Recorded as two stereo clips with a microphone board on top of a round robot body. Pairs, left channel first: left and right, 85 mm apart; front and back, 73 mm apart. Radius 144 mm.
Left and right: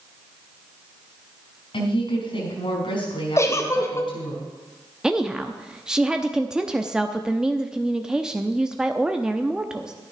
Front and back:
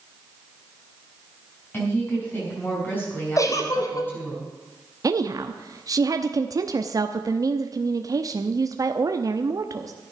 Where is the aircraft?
I don't hear an aircraft.